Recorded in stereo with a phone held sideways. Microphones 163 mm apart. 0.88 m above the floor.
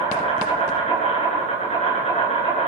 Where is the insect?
40° left (ahead or behind), 9.5 m.